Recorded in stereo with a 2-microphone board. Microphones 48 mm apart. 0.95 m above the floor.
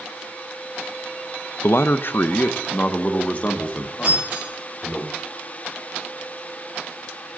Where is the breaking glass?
35° right (ahead or behind), 5.5 m.